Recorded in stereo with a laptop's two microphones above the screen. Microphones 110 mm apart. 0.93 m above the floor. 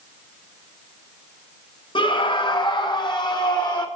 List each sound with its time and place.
1.9 s a scream: 45° left (ahead or behind), 1.4 m; by 3.9 s 40° left (ahead or behind), 2.5 m